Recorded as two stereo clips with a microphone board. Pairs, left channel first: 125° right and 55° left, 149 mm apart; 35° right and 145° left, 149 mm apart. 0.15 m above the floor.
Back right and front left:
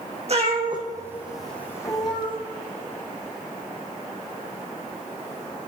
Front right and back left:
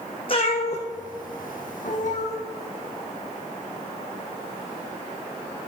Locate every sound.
0.3 s a cat meowing: 15° left, 1.7 m; by 2.4 s 75° right, 1.8 m